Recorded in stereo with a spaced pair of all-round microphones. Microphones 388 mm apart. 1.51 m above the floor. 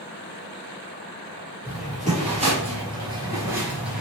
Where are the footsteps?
20° right (ahead or behind), 1.9 m; by 4.0 s centre (ahead or behind), 1.4 m.